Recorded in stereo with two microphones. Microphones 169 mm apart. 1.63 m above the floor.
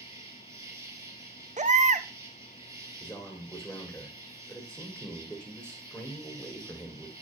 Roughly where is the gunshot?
No gunshot in this recording.